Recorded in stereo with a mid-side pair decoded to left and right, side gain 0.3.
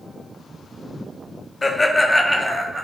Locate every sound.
1.6 s laughter: 35° left, 0.6 m; by 2.9 s 35° right, 0.6 m